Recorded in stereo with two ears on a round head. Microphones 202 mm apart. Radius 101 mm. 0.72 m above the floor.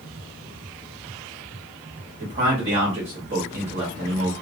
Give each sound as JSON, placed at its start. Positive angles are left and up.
{"t": 2.2, "sound": "a man speaking", "side_deg": -30, "distance_m": 1.2}